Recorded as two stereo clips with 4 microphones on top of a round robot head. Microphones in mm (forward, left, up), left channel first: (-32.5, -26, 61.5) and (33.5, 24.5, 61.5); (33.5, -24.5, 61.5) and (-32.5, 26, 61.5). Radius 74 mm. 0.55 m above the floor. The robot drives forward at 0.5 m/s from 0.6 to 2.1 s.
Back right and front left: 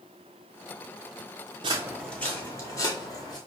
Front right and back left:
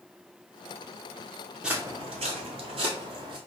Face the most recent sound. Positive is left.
turn(degrees=170)